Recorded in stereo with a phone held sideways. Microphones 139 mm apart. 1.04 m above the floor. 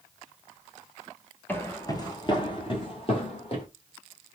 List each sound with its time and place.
1.5 s footsteps: 15° left (ahead or behind), 1.0 m; by 3.6 s 40° left (ahead or behind), 2 m